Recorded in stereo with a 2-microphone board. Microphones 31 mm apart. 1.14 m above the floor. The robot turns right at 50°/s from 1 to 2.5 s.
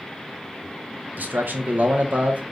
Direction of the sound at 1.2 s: 110° right.